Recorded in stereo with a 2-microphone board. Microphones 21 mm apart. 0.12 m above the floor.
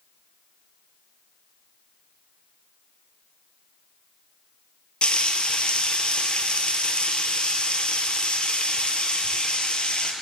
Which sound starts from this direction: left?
Frying, at 5.0 s.